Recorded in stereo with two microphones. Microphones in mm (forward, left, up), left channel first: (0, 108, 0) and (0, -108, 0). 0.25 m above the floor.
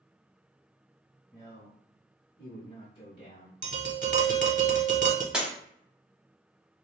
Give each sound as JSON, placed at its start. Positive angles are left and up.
{"t": 1.3, "sound": "a man speaking", "side_deg": 15, "distance_m": 1.3}
{"t": 3.6, "sound": "tapping", "side_deg": -40, "distance_m": 0.6}
{"t": 5.3, "sound": "breaking glass", "side_deg": -5, "distance_m": 0.9}